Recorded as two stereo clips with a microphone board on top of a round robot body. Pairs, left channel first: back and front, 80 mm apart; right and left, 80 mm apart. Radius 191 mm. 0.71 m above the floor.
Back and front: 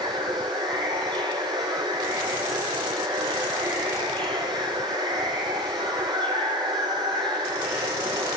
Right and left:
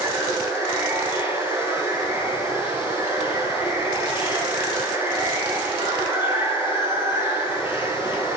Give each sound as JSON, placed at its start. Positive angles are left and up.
{"t": 0.0, "sound": "running water", "azimuth_deg": 20, "distance_m": 8.0}